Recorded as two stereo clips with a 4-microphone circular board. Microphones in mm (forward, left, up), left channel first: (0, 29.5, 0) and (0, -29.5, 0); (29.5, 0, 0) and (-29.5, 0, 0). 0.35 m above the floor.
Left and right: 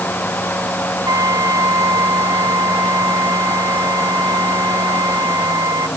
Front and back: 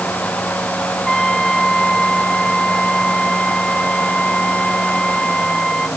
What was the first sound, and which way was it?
A trumpet, 80° right.